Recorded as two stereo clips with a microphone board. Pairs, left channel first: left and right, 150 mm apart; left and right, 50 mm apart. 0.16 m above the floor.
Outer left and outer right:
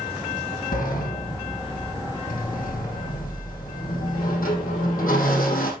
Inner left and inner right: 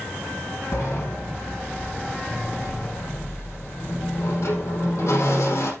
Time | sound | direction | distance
0.7 | a sliding door | 70° left (ahead or behind) | 4.5 m